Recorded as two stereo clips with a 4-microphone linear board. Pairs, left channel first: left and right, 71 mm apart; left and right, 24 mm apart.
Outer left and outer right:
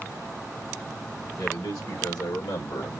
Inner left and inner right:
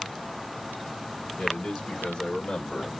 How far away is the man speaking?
About 2 m.